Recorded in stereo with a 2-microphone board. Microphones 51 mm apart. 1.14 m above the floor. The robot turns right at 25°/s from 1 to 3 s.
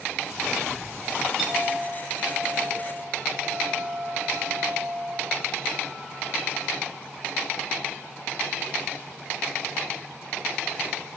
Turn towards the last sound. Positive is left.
turn(degrees=-140)